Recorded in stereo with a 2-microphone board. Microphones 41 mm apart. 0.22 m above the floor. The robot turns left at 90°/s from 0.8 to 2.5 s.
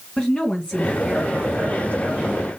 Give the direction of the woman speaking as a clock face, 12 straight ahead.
11 o'clock.